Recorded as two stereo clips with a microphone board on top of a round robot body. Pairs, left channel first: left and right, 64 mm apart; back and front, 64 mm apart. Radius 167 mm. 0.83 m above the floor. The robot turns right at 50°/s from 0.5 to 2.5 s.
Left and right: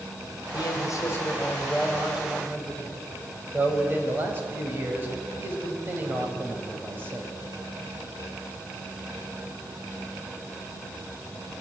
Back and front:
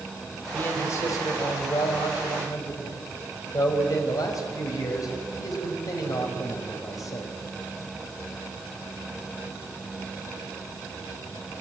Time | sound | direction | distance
0.5 | a man speaking | 115° left | 4.5 m